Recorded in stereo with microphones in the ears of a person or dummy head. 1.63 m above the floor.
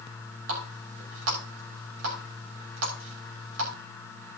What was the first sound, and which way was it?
A running tap, 80° right.